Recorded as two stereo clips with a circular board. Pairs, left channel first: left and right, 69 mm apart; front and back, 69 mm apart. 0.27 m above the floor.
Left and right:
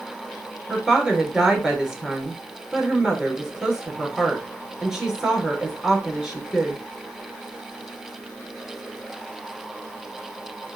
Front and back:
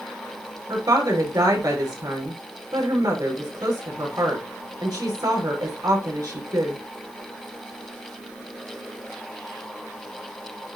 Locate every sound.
0.7 s a woman speaking: 170° right, 4.5 m